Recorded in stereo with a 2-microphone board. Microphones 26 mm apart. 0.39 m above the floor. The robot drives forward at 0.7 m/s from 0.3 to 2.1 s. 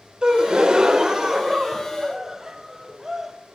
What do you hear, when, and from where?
0.2 s a gasp: 35° right (ahead or behind), 0.7 m; by 3.3 s 20° right (ahead or behind), 1.4 m